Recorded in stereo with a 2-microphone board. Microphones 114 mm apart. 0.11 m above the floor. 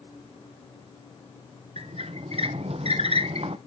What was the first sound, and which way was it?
A squeak, 60° right (ahead or behind).